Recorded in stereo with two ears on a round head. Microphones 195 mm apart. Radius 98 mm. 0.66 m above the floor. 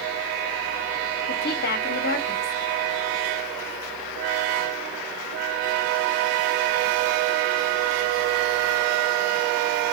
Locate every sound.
1.3 s a woman speaking: 45° left (ahead or behind), 1.2 m